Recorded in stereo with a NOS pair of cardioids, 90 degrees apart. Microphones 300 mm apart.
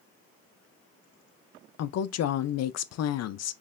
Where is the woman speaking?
60° left, 0.7 m.